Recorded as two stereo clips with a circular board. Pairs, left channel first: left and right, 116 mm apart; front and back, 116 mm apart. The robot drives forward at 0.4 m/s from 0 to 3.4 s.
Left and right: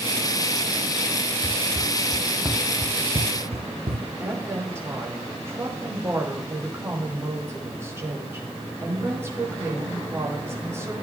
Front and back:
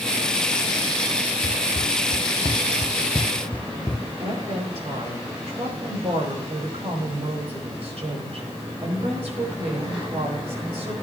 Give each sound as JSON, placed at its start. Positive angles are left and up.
{"t": 1.4, "sound": "running footsteps", "azimuth_deg": 30, "distance_m": 1.1}
{"t": 4.2, "sound": "a woman speaking", "azimuth_deg": -155, "distance_m": 4.5}